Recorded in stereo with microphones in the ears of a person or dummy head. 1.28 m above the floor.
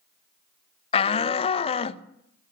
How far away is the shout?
About 0.7 m.